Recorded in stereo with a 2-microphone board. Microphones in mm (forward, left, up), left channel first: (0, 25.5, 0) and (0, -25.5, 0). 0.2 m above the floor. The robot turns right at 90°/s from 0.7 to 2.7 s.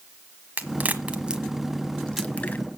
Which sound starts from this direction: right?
A crack, at 0.6 s.